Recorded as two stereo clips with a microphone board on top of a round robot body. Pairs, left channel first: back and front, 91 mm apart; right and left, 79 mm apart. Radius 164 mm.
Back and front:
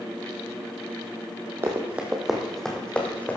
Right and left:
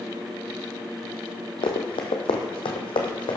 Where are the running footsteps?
65° right, 1.2 m; by 3.4 s 110° right, 1.7 m.